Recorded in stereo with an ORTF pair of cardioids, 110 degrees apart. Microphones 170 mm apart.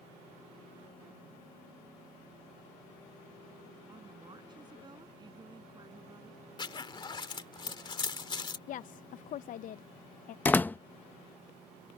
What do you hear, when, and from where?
3.9 s a woman speaking: 25° right
6.6 s a zipper: 25° left
8.7 s a woman speaking: 50° left
10.4 s a door slam: 10° left